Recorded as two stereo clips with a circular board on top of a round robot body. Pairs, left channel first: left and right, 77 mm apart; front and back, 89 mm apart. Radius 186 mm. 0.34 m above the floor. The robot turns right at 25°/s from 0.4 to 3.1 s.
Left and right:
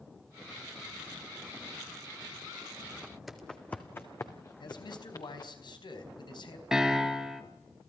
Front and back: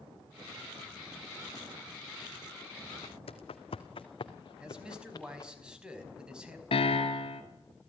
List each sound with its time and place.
3.0 s footsteps: 15° right, 1.4 m; by 5.5 s 50° left, 3.5 m
4.6 s a man speaking: 100° left, 5 m
6.7 s a piano: 5° right, 2.5 m